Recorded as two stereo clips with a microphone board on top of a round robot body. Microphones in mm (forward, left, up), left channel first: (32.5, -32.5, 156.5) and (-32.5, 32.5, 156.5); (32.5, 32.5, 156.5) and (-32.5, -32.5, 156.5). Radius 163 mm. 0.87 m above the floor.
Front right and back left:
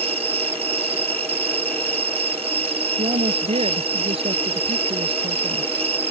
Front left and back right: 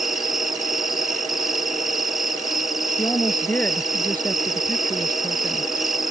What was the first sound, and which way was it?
An insect, 140° left.